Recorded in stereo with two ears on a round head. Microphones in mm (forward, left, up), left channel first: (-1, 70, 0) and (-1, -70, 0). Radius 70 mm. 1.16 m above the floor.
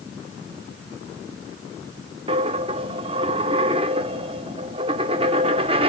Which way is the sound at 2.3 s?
35° right (ahead or behind).